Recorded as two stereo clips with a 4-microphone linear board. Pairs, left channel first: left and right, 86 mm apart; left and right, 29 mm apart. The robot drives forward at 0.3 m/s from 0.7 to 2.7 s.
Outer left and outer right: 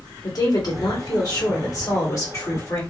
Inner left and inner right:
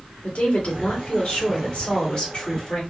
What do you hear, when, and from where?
0.2 s a woman speaking: 50° left (ahead or behind), 1.4 m; by 2.8 s 35° left (ahead or behind), 1.8 m